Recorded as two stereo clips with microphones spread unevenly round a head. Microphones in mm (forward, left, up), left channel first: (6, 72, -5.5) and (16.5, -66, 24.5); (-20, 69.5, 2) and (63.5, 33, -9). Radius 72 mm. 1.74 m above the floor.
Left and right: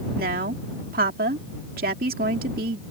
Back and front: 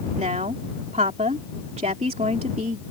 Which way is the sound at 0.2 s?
70° right.